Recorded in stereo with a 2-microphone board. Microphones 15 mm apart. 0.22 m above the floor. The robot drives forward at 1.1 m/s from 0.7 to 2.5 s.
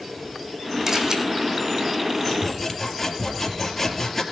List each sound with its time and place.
0.9 s a camera shutter: 35° right (ahead or behind), 4 m
2.2 s sawing: 10° left (ahead or behind), 3.5 m